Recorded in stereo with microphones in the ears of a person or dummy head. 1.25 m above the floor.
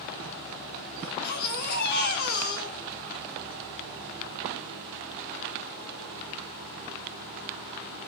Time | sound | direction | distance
1.0 | a baby crying | 50° left (ahead or behind) | 3 m